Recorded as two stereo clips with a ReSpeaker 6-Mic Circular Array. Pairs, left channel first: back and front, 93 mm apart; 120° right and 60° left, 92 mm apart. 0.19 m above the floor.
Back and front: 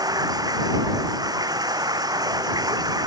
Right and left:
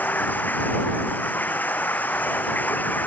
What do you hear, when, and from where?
0.0 s running water: 50° right